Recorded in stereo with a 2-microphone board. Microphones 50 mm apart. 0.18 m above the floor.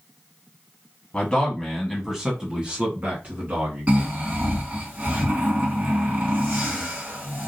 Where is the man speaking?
20° left (ahead or behind), 1.1 m; by 4.1 s 40° right (ahead or behind), 2 m.